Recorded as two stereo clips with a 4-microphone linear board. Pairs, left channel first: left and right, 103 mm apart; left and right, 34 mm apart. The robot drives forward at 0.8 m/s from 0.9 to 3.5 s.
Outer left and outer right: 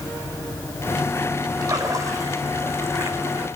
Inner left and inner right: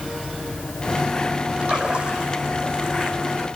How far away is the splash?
About 3.5 m.